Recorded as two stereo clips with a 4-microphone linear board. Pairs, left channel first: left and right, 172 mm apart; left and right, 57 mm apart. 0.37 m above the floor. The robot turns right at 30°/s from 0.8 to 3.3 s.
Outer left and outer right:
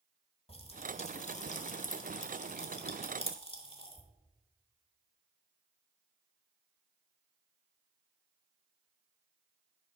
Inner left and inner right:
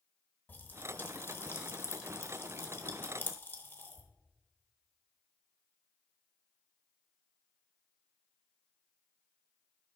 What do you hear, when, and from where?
0.5 s a pop: 35° left (ahead or behind), 1.1 m